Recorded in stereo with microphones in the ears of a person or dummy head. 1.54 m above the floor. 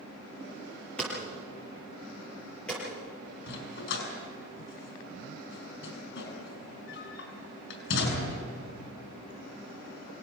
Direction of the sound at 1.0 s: 5° left (ahead or behind).